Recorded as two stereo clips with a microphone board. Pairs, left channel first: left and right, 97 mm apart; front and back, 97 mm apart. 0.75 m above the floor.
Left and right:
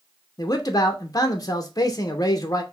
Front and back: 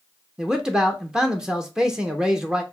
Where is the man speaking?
100° left, 0.6 m.